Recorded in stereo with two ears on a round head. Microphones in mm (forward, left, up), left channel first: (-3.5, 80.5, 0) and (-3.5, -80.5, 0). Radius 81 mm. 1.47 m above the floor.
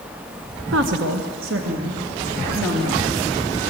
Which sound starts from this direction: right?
A woman speaking, at 0.7 s.